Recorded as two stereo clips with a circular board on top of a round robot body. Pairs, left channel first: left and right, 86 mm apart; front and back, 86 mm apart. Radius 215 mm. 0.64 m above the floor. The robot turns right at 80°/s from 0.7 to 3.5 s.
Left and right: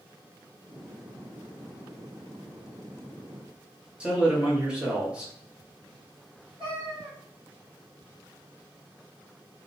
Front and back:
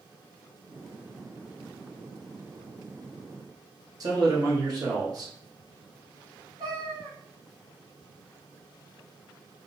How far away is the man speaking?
About 1.3 m.